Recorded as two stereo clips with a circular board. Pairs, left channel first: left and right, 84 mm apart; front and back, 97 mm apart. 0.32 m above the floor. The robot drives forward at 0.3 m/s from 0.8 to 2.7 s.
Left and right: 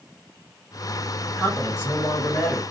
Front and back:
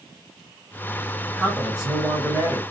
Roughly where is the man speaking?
Left.